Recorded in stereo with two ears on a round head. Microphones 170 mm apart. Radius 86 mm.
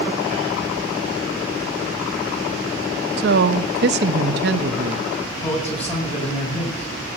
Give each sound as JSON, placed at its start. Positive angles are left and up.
{"t": 3.2, "sound": "a woman speaking", "side_deg": -55, "distance_m": 0.8}
{"t": 5.4, "sound": "a man speaking", "side_deg": 35, "distance_m": 7.0}